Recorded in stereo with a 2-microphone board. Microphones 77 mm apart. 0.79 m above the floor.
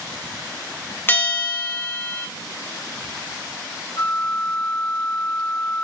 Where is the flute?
60° left (ahead or behind), 0.9 m.